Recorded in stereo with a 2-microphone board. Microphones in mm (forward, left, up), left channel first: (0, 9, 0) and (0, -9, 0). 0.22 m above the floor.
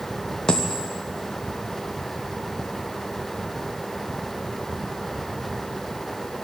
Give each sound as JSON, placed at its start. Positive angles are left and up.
{"t": 0.5, "sound": "a dropped coin", "side_deg": 45, "distance_m": 2.0}